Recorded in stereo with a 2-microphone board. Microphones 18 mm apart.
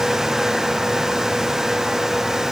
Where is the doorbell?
No doorbell in this recording.